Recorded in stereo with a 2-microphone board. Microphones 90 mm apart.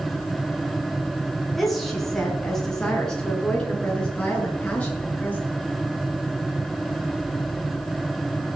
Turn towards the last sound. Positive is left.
turn(degrees=15)  # may be behind; listen again after turning